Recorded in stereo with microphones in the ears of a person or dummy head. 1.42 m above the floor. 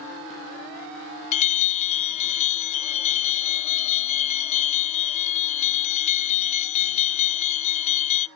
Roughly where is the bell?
Left.